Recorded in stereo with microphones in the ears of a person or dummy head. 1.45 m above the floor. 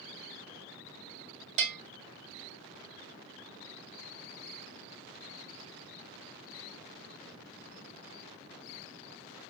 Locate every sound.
1.6 s a bell: 40° right (ahead or behind), 1.6 m